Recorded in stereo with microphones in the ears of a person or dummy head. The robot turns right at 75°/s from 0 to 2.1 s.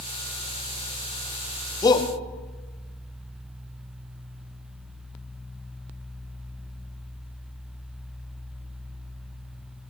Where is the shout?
15° left (ahead or behind), 1.7 m; by 2.1 s 35° left (ahead or behind), 1.7 m.